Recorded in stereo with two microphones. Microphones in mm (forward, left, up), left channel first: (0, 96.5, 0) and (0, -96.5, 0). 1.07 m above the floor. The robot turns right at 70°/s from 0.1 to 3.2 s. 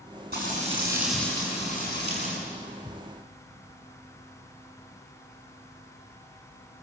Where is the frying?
55° right, 8.5 m; by 2.4 s 85° left, 8.5 m.